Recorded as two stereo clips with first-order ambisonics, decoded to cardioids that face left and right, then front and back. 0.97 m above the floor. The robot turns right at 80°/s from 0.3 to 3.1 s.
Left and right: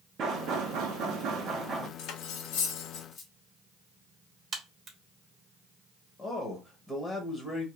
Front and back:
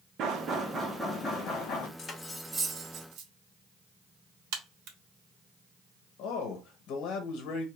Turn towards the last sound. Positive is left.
turn(degrees=20)